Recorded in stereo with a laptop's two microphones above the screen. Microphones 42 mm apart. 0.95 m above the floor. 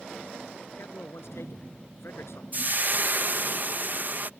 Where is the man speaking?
80° left.